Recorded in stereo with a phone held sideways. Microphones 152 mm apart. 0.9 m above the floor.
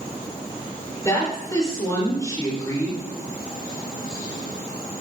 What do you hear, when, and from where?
1.1 s a woman speaking: 25° left (ahead or behind), 3.5 m